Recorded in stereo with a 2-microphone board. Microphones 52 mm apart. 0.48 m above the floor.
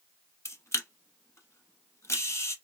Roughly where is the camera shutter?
Left.